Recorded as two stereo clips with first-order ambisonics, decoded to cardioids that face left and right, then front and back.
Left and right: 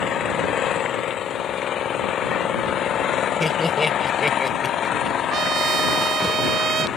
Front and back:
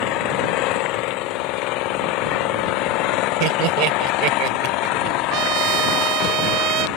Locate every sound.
0.0 s an engine running: 30° left
3.4 s laughter: 170° left
5.3 s a trumpet: 150° right